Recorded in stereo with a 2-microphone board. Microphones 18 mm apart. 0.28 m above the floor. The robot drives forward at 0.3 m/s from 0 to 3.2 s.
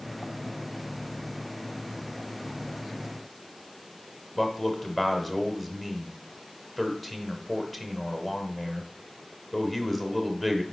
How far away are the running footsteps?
No running footsteps in this recording.